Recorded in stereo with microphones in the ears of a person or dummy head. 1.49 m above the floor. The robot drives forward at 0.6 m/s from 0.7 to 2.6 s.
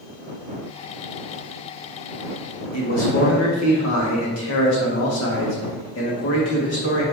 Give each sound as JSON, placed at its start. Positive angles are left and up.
{"t": 2.7, "sound": "a man speaking", "side_deg": 80, "distance_m": 1.6}